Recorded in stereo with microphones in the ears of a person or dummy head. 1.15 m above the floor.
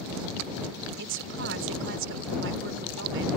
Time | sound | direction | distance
1.0 | a woman speaking | 70° right (ahead or behind) | ?